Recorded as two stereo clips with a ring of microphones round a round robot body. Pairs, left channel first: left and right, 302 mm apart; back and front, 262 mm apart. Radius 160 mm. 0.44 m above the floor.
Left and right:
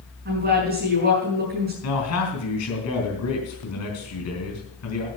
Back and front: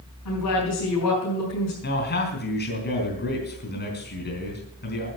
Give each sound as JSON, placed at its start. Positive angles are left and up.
{"t": 0.2, "sound": "a woman speaking", "azimuth_deg": -145, "distance_m": 4.5}
{"t": 1.8, "sound": "a man speaking", "azimuth_deg": 130, "distance_m": 3.5}